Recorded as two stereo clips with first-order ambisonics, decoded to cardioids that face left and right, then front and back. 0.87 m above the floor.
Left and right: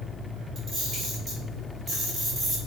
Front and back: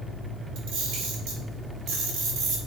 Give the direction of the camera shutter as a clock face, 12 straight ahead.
5 o'clock.